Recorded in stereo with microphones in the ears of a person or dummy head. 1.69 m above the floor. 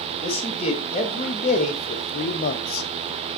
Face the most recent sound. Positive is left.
turn(degrees=60)  # may be behind; listen again after turning